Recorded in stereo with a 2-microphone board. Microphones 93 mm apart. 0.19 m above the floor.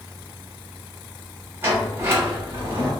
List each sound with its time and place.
1.6 s a sliding door: 25° right (ahead or behind), 1.2 m